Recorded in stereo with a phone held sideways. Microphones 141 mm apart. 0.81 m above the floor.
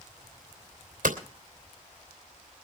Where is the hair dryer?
No hair dryer in this recording.